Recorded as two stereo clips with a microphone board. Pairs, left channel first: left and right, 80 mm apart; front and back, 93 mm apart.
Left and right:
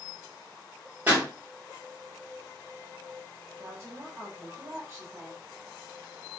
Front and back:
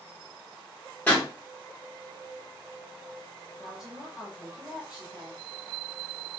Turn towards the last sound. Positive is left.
turn(degrees=-105)